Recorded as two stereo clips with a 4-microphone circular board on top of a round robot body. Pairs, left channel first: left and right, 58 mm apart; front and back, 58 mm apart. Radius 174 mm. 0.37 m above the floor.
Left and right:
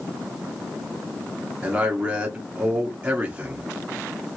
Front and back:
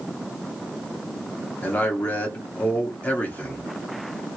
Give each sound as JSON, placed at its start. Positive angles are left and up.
{"t": 1.6, "sound": "a man speaking", "azimuth_deg": -35, "distance_m": 1.0}